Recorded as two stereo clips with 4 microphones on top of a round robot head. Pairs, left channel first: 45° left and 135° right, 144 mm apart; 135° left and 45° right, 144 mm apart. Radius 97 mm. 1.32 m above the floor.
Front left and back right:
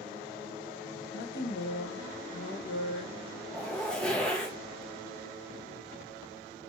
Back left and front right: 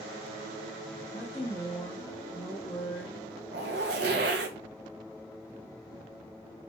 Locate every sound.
1.1 s a woman speaking: 55° left, 1.2 m
3.5 s a zipper: 40° right, 0.7 m